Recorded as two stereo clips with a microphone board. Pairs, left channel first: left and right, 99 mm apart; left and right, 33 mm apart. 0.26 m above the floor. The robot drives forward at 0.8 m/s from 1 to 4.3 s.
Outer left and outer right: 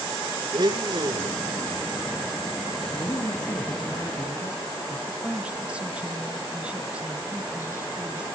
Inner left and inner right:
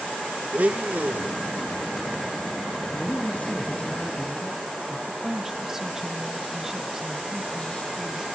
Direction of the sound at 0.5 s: 50° right (ahead or behind).